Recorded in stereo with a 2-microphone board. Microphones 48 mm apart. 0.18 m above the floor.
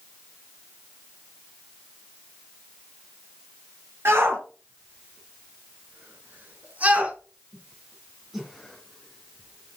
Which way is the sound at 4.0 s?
55° right (ahead or behind).